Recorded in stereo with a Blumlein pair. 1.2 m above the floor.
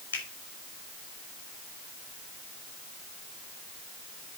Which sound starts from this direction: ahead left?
A finger snap, at 0.1 s.